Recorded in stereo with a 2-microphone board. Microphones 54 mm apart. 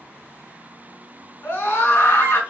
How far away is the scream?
About 1.6 m.